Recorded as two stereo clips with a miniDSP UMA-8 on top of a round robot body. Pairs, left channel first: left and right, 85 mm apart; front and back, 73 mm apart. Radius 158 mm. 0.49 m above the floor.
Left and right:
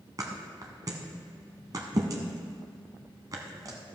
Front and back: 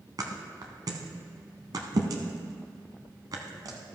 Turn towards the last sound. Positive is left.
turn(degrees=-140)